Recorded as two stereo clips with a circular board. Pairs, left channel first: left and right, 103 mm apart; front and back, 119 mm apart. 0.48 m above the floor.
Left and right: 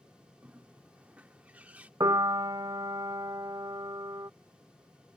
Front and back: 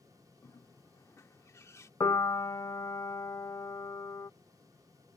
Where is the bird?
30° right.